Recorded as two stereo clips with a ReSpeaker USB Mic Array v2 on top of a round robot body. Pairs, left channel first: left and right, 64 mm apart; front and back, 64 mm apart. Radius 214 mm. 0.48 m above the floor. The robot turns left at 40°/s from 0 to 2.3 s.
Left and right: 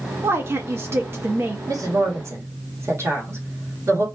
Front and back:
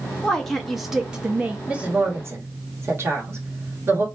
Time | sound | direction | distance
0.2 | a woman speaking | 70° right | 0.8 m
1.7 | a woman speaking | 105° right | 1.6 m